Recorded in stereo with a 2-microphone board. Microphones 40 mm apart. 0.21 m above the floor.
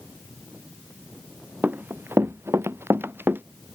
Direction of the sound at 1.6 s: 45° right (ahead or behind).